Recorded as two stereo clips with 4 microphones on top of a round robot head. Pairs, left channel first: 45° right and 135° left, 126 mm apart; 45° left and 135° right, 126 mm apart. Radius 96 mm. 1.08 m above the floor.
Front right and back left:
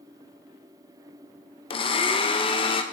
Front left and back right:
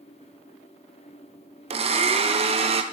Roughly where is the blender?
Right.